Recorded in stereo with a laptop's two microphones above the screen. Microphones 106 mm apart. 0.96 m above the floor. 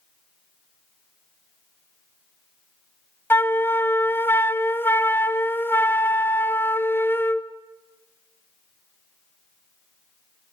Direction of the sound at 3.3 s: 20° left (ahead or behind).